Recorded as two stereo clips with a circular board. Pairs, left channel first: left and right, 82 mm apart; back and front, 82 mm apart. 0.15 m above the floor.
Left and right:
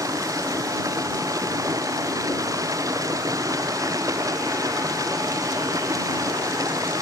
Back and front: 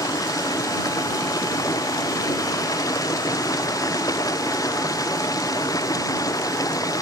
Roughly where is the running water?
Behind right.